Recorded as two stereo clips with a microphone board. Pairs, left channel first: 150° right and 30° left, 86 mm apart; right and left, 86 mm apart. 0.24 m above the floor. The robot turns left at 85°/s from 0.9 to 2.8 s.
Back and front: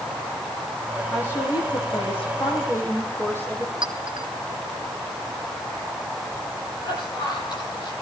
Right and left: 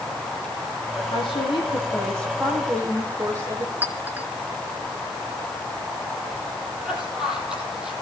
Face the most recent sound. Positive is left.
turn(degrees=175)